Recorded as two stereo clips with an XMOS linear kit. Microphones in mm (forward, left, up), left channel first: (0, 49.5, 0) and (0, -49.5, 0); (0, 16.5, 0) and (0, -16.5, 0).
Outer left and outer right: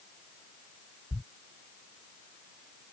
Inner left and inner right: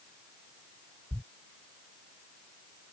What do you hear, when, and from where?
1.1 s a thud: 25° left (ahead or behind)